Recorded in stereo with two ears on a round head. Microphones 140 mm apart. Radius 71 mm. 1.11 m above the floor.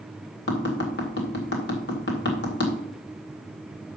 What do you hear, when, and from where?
0.5 s tapping: 80° left, 1.9 m